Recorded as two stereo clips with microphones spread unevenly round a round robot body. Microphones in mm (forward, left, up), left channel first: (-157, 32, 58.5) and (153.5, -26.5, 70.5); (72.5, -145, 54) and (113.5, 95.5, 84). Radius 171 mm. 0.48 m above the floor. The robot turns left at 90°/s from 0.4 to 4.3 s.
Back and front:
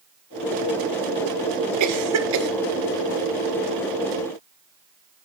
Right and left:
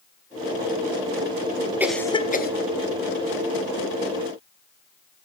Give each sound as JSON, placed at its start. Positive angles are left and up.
{"t": 1.8, "sound": "a cough", "azimuth_deg": -5, "distance_m": 1.8}